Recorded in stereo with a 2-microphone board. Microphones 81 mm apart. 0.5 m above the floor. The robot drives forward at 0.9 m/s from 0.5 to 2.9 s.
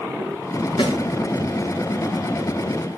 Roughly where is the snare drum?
Left.